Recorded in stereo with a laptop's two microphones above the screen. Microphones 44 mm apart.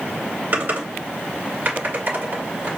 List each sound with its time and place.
0.5 s typing on a keyboard: 45° right (ahead or behind), 1.9 m